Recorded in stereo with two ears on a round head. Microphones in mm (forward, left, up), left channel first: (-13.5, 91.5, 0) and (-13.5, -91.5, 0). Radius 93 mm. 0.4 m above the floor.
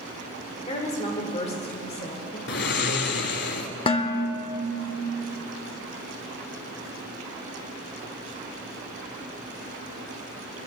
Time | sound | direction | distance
0.7 | a woman speaking | 30° left (ahead or behind) | 1.3 m
2.5 | snoring | 55° left (ahead or behind) | 0.9 m
3.9 | dishes clattering | 25° left (ahead or behind) | 0.8 m